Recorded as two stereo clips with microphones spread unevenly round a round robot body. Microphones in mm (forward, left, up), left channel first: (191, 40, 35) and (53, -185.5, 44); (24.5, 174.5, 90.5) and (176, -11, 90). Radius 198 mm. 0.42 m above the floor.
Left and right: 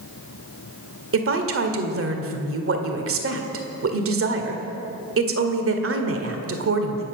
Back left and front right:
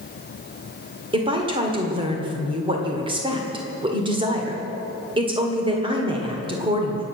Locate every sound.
1.1 s a woman speaking: 115° right, 1.9 m